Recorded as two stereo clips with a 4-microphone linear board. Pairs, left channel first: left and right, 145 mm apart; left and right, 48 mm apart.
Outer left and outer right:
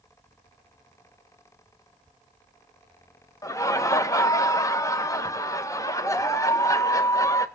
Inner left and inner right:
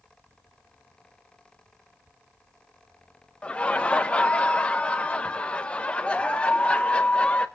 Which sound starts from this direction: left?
Laughter, at 3.4 s.